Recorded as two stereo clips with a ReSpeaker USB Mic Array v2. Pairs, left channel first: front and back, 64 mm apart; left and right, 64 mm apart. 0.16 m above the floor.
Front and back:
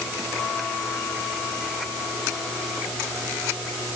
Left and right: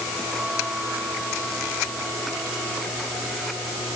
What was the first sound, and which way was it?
Only background noise.